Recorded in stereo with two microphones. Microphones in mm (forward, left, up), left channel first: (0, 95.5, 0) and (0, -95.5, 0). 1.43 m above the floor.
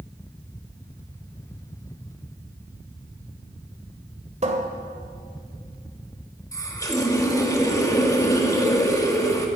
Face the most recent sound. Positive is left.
turn(degrees=15)  # may be behind; listen again after turning